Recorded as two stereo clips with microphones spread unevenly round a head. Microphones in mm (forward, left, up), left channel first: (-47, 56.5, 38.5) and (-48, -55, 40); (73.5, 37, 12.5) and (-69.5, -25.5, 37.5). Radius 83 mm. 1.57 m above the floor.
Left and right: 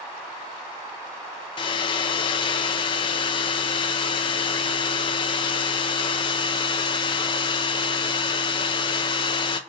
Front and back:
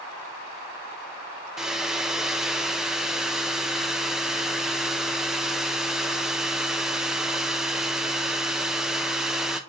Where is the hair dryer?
125° left, 0.5 m.